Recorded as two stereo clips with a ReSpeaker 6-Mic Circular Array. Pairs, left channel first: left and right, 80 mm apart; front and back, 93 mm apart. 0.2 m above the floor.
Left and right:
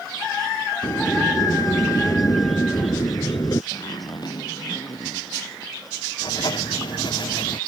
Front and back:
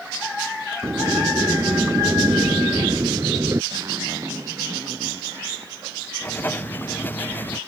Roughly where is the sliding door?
Behind left.